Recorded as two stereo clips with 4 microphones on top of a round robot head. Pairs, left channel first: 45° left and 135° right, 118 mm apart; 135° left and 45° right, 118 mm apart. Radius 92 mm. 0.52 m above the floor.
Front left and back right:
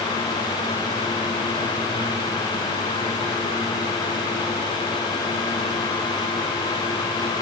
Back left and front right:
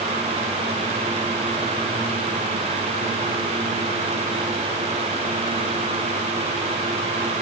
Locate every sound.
Only background noise.